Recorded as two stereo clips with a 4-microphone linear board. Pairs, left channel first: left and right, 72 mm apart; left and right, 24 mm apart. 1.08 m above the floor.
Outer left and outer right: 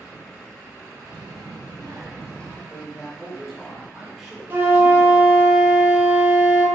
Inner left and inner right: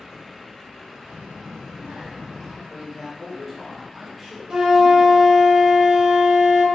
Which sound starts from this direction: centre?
A man speaking, at 2.7 s.